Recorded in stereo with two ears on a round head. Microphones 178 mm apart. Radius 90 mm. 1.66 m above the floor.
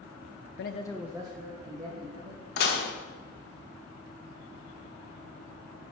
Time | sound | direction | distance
0.6 | a man speaking | 60° left (ahead or behind) | 0.5 m
2.6 | dishes clattering | 55° left (ahead or behind) | 1.3 m